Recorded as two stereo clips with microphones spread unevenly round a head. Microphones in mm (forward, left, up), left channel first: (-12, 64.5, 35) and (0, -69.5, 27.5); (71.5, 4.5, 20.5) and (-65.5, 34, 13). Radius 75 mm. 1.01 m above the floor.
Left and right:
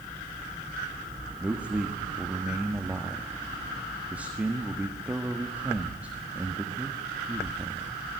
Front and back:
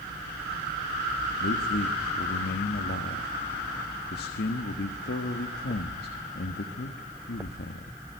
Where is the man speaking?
5° right, 1.5 m.